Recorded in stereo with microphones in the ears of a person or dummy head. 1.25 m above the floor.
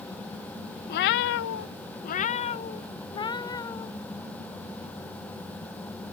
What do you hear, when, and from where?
0.9 s a cat meowing: 55° left (ahead or behind); by 3.9 s 15° left (ahead or behind)